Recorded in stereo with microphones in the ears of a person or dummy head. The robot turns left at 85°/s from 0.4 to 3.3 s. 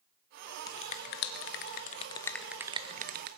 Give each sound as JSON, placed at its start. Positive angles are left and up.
{"t": 0.7, "sound": "a finger snap", "side_deg": 20, "distance_m": 0.8}